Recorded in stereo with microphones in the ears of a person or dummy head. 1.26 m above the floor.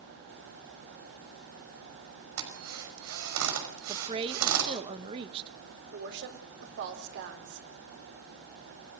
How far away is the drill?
About 5.5 m.